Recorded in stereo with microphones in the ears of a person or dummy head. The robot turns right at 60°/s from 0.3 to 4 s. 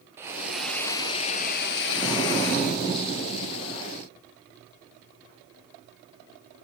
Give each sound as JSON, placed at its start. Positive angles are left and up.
{"t": 0.2, "sound": "a hiss", "azimuth_deg": -20, "distance_m": 0.6}
{"t": 1.9, "sound": "an explosion", "azimuth_deg": 0, "distance_m": 7.0}